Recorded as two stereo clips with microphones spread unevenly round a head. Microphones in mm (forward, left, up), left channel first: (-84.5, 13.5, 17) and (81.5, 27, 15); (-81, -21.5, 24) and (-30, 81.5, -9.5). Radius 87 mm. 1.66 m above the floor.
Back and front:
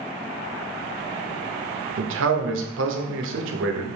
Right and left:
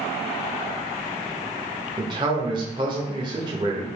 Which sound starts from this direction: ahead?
A man speaking, at 2.0 s.